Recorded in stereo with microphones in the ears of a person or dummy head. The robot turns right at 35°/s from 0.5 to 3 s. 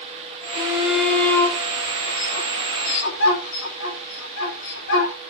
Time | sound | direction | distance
0.5 | a shout | 15° right (ahead or behind) | 7 m